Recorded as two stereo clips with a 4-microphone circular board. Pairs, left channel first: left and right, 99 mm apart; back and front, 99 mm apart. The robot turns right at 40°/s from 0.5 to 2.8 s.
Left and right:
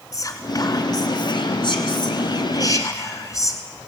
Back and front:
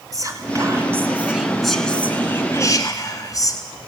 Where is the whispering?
45° left, 2.5 m; by 3.6 s 135° left, 2.5 m.